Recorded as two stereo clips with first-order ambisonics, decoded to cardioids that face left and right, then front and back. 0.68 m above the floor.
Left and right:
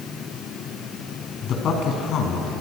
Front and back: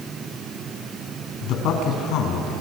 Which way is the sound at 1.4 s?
35° left.